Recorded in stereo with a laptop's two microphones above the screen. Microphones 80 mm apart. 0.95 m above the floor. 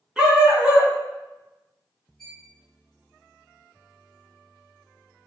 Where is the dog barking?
15° right (ahead or behind), 3.5 m.